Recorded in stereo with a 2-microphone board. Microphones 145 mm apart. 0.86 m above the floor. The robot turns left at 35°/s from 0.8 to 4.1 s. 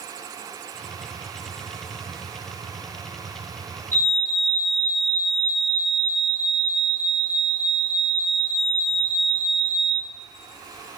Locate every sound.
3.9 s a fire alarm: 65° left (ahead or behind), 4 m; by 10.0 s 70° left (ahead or behind), 4 m